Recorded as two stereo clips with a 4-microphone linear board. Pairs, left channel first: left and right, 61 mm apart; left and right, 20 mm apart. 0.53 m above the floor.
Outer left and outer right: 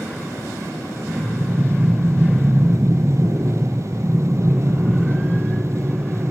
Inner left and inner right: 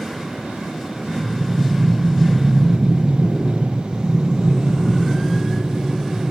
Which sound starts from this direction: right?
Breathing, at 1.1 s.